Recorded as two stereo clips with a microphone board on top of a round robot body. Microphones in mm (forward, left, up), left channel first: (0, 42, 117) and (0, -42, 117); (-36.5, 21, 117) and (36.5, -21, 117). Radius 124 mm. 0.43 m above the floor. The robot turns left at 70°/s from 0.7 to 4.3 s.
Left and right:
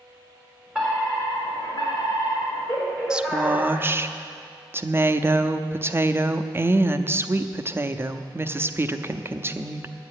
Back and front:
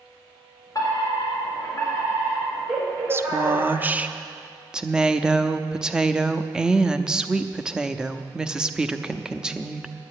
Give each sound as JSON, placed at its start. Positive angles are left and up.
{"t": 0.8, "sound": "a fire alarm", "azimuth_deg": -170, "distance_m": 4.0}
{"t": 3.1, "sound": "a woman speaking", "azimuth_deg": -20, "distance_m": 0.8}